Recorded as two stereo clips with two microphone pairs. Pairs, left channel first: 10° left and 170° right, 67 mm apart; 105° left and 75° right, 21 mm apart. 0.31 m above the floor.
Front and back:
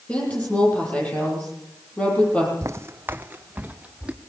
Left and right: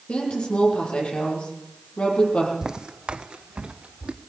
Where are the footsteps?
135° right, 0.7 m; by 4.1 s 95° right, 2 m.